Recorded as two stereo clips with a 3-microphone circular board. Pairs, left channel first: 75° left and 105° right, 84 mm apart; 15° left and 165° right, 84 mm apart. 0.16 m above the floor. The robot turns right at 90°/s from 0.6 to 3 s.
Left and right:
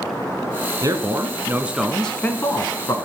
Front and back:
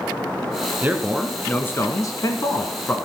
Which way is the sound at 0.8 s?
110° right.